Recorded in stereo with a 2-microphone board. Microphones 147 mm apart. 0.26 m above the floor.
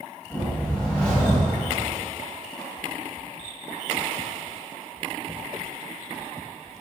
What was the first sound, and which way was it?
A whoosh, 5° left (ahead or behind).